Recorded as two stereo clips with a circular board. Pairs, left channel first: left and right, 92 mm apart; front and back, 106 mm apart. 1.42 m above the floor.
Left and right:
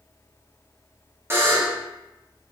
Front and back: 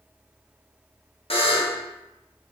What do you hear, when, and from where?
1.3 s a buzzer: 25° right, 0.8 m